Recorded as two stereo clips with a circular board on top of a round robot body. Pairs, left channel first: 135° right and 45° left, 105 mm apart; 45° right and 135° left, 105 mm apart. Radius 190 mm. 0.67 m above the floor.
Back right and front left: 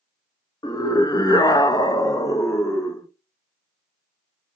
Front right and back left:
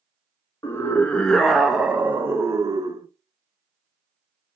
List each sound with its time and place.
0.6 s a scream: 100° right, 1.4 m; by 3.1 s 165° left, 1.5 m